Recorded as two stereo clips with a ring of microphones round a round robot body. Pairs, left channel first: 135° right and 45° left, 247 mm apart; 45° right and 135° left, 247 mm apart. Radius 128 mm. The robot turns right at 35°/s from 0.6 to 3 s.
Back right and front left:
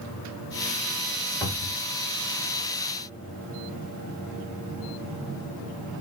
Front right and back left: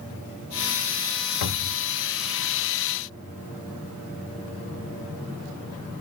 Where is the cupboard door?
55° right, 1.0 m; by 1.9 s 40° right, 1.0 m.